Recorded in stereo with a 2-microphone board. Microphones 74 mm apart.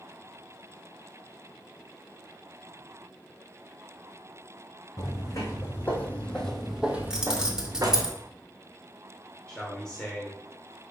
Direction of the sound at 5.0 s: 45° left (ahead or behind).